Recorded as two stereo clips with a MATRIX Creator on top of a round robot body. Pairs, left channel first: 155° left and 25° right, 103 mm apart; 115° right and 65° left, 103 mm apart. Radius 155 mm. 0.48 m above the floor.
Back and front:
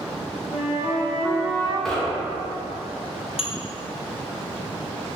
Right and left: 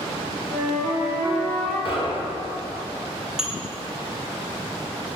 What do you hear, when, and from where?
0.5 s a flute: 155° left, 1.5 m
1.9 s knocking: 115° right, 0.8 m
3.4 s dishes clattering: 150° left, 0.6 m